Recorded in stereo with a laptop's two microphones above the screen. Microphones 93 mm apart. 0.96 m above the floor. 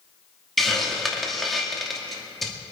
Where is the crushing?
I don't hear crushing.